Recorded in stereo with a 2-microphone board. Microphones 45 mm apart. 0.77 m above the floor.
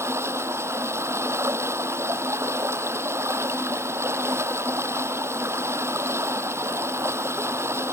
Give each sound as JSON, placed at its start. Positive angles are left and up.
{"t": 0.0, "sound": "running water", "side_deg": -75}